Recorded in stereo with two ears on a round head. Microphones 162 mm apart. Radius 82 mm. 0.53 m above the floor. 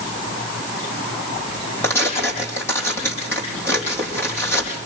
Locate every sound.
1.8 s tearing paper: 15° left (ahead or behind), 6.5 m